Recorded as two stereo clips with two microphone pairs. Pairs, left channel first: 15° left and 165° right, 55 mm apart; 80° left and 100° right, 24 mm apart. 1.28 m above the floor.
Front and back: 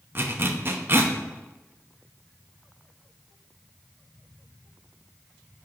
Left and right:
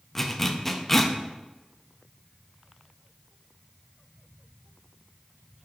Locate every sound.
0.1 s a zipper: 160° left, 0.7 m